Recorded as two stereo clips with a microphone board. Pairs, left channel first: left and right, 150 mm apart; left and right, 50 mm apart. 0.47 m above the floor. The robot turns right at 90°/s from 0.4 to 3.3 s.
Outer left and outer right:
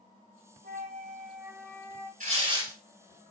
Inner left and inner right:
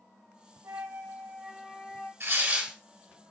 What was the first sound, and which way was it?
A flute, 95° right.